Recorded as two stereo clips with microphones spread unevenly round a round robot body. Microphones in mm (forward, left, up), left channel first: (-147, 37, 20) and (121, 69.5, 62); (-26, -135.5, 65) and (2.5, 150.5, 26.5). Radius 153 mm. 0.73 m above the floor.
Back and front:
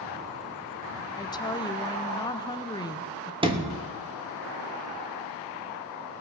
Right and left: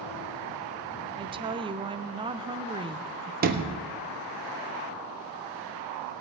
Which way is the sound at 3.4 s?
80° left.